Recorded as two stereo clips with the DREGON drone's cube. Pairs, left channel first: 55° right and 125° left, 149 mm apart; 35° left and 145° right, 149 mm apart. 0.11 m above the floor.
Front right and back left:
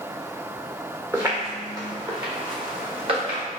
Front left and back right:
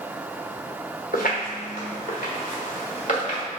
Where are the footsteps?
50° left, 1.2 m; by 3.4 s 75° left, 2.5 m.